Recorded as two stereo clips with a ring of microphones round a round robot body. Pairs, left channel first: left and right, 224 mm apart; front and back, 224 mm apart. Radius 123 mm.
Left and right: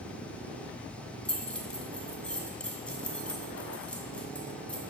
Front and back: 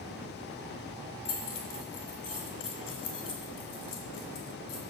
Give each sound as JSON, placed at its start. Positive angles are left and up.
{"t": 1.2, "sound": "keys jangling", "azimuth_deg": 5, "distance_m": 2.0}